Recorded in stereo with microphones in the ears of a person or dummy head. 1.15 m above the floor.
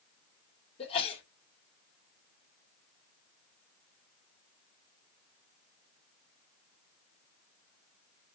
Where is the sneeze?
25° left (ahead or behind), 2.5 m.